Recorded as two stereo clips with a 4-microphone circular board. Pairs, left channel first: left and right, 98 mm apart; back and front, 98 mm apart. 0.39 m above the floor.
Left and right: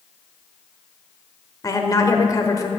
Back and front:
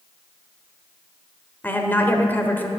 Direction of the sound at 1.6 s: 120° left.